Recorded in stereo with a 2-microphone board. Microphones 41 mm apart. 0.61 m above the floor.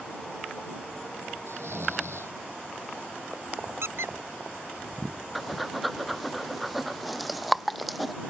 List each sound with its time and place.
1.5 s snoring: 90° right
3.8 s a squeak: 85° right
5.3 s breathing: centre (ahead or behind)